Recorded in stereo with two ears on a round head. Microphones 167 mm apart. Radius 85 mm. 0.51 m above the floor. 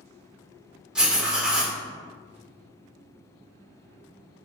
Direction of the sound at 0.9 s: 5° right (ahead or behind).